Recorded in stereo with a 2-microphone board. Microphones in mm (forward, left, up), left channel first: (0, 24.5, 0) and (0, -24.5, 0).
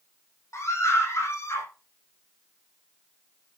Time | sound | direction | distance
0.5 | a scream | 80° left | 8.5 m